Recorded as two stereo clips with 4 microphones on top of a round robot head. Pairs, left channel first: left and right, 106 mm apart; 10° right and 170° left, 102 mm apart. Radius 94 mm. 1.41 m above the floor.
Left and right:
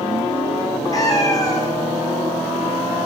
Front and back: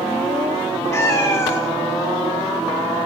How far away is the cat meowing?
About 0.8 m.